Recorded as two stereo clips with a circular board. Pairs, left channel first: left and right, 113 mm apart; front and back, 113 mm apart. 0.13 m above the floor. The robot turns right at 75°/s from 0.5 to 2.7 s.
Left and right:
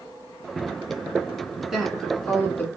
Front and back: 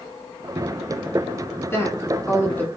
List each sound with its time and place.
1.6 s a woman speaking: 15° right, 1.3 m; by 2.7 s 65° left, 1.3 m